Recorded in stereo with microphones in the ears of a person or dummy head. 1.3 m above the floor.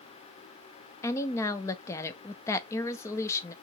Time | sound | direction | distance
1.0 | a woman speaking | 15° left (ahead or behind) | 0.5 m